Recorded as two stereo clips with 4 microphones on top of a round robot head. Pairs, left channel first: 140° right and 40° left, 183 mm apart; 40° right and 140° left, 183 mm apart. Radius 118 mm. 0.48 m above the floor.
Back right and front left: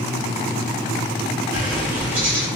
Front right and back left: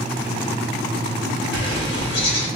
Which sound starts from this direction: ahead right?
A bird, at 1.5 s.